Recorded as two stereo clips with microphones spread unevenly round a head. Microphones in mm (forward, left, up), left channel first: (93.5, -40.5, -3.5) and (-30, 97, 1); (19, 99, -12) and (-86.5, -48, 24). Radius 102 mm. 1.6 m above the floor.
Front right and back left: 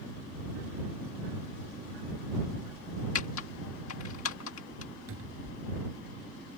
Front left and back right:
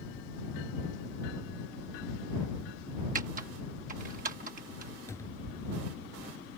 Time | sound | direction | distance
3.1 | typing on a keyboard | 75° right | ?
5.1 | a cupboard door | 130° left | ?